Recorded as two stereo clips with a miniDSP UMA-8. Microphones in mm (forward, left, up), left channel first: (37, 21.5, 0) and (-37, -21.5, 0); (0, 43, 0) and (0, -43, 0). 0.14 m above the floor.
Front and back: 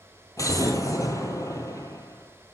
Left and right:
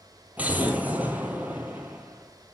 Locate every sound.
0.4 s an explosion: 20° right, 1.4 m